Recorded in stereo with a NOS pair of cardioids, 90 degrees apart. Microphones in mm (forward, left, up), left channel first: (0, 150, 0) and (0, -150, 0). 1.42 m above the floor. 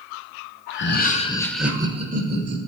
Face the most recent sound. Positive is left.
turn(degrees=-40)